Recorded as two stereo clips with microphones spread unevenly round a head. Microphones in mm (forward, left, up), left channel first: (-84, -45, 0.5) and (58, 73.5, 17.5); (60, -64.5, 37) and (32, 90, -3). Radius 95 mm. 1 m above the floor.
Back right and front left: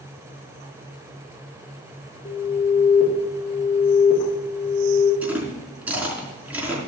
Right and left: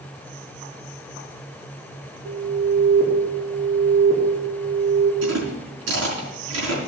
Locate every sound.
2.2 s an alarm: 170° left, 4 m
5.2 s chewing: 120° left, 4 m